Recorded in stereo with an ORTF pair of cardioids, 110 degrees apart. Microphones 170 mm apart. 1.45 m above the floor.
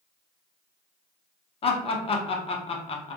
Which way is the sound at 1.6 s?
35° left.